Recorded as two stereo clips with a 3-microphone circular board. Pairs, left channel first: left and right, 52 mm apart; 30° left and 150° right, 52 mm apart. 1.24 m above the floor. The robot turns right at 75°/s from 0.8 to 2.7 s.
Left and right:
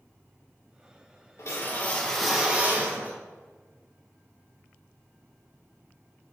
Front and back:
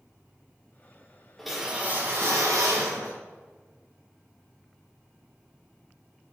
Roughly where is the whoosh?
Behind left.